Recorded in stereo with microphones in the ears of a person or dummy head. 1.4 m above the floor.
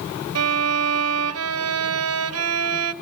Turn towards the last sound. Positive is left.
turn(degrees=-70)  # may be behind; listen again after turning